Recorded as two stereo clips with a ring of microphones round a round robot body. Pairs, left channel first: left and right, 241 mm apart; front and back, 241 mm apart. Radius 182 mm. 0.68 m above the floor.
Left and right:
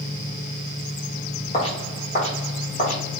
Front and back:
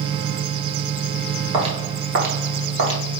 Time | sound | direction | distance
1.5 | footsteps | 140° left | 0.6 m